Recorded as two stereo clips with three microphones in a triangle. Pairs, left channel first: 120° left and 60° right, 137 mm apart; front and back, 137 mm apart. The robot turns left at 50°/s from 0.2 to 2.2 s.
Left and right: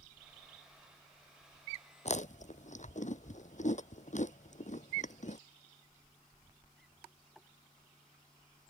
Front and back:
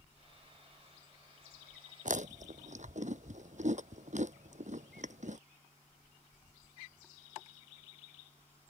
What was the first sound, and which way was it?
Chewing, 155° left.